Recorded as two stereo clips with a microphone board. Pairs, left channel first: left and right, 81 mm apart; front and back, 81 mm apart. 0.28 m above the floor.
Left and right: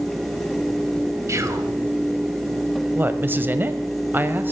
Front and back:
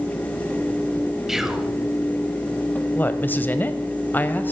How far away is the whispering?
About 1.5 m.